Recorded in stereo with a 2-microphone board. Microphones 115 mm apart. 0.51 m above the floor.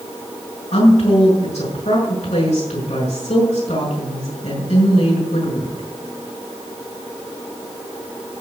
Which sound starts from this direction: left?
A woman speaking, at 0.7 s.